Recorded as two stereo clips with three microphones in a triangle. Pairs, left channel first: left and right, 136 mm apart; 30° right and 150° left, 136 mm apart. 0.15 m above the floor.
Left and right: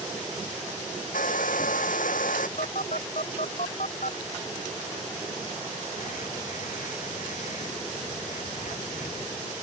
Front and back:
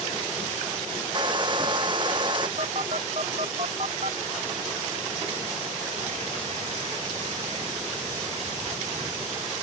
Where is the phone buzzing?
110° left.